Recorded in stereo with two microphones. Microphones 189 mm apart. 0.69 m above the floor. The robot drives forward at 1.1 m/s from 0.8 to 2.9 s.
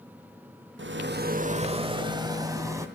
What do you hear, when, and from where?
0.8 s a rattle: 80° right, 0.6 m; by 2.9 s 15° right (ahead or behind), 2.5 m